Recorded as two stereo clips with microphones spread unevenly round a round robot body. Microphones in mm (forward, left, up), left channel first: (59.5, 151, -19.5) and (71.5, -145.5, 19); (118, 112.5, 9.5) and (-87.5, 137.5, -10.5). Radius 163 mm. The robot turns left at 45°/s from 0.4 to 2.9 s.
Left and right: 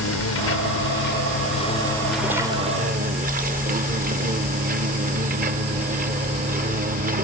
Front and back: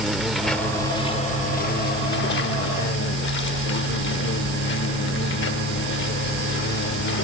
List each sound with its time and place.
0.0 s an insect: 85° left; by 7.2 s 25° right